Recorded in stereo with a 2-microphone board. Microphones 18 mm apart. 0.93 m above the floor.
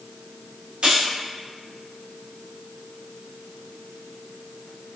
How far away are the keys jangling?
About 1.6 m.